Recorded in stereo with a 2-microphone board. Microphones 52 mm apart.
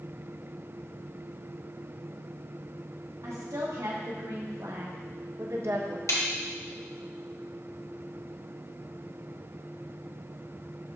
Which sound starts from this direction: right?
A woman speaking, at 3.2 s.